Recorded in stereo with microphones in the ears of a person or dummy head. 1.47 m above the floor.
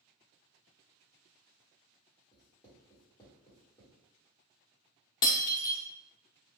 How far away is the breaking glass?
About 0.5 m.